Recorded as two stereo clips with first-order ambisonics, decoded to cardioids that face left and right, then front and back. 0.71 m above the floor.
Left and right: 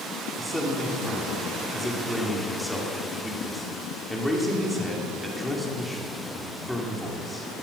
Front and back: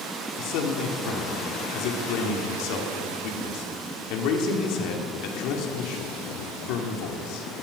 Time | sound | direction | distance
0.4 | a man speaking | straight ahead | 2 m